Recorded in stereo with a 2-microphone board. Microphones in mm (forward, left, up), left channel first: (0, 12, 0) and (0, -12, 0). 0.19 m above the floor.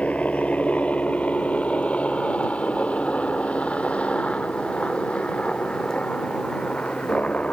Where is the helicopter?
70° left (ahead or behind); by 7.5 s 60° left (ahead or behind).